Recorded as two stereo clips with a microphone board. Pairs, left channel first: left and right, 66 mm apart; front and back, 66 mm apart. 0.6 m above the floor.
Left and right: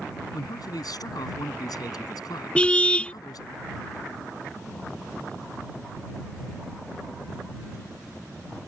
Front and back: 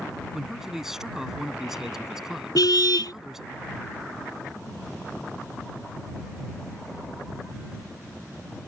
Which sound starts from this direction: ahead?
A car horn, at 2.5 s.